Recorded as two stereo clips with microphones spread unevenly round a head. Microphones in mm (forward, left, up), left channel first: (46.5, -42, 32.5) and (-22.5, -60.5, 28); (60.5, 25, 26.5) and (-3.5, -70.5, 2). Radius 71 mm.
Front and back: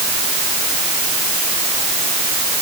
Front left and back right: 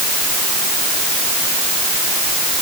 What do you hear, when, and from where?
Only background noise.